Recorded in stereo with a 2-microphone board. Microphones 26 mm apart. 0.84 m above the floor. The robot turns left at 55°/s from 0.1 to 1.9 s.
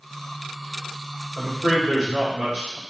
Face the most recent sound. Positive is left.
turn(degrees=-45)